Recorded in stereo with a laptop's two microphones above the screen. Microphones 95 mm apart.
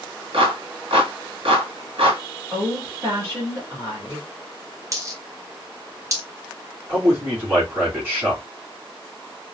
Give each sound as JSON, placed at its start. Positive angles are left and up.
{"t": 0.3, "sound": "a clap", "side_deg": -70, "distance_m": 1.7}
{"t": 2.5, "sound": "a woman speaking", "side_deg": -30, "distance_m": 2.5}
{"t": 4.9, "sound": "a dropped coin", "side_deg": -35, "distance_m": 0.8}
{"t": 6.9, "sound": "a man speaking", "side_deg": -25, "distance_m": 2.5}